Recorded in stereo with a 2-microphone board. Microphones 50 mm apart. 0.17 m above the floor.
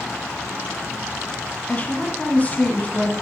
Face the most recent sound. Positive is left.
turn(degrees=30)  # may be behind; listen again after turning